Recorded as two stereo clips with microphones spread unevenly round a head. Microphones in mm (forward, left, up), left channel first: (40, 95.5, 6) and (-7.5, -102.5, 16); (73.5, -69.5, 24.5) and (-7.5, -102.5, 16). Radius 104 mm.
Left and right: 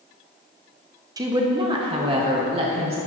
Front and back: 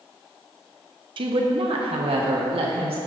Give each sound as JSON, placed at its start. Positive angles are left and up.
{"t": 1.2, "sound": "a woman speaking", "azimuth_deg": 180, "distance_m": 0.8}